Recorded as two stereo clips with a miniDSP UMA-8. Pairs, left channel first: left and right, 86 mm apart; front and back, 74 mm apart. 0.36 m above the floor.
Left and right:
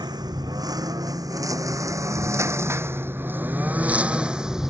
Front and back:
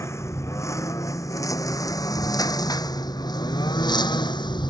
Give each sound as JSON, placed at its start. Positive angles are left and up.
{"t": 0.0, "sound": "a lawn mower", "azimuth_deg": -50}